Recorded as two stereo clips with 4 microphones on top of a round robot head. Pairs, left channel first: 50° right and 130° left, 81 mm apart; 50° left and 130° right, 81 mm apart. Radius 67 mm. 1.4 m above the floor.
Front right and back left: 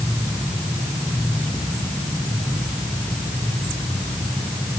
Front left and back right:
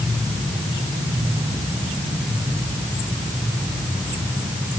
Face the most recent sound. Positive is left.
No sound to turn to.